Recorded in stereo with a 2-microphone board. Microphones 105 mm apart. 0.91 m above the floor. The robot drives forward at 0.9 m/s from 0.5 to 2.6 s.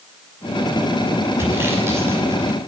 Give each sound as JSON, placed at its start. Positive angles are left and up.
{"t": 1.4, "sound": "sawing", "side_deg": -25, "distance_m": 6.0}